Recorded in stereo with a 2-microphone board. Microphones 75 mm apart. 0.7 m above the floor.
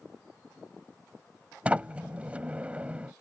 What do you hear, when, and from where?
1.6 s a sliding door: 15° right (ahead or behind)